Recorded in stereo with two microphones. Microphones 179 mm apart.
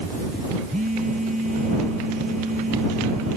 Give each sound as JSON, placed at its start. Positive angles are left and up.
{"t": 0.7, "sound": "a phone buzzing", "side_deg": -50}